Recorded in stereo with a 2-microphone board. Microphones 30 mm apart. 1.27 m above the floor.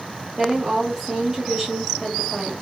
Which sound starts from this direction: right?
A woman speaking, at 0.4 s.